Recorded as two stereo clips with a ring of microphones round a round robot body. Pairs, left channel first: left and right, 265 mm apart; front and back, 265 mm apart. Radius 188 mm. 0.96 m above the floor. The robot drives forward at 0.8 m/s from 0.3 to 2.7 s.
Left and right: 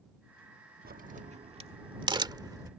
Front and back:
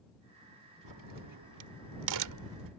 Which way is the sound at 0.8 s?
150° right.